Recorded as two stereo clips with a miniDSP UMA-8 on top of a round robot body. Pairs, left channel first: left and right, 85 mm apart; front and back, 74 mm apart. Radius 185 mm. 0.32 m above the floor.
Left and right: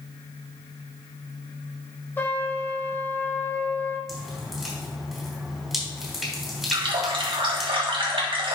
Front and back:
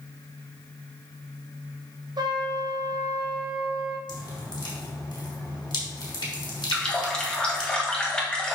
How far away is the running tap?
About 2.0 m.